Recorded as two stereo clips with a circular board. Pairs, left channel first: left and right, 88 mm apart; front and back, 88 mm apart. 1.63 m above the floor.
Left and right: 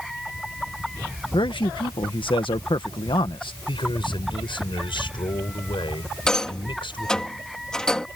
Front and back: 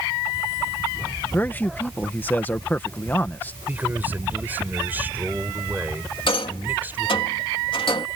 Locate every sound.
1.3 s a man speaking: 70° left
3.7 s a man speaking: 110° left
6.3 s a rattle: 10° left